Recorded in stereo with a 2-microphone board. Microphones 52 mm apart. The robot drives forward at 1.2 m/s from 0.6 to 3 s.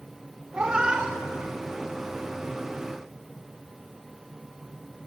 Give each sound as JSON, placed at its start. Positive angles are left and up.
{"t": 0.5, "sound": "a cat meowing", "side_deg": -20, "distance_m": 0.6}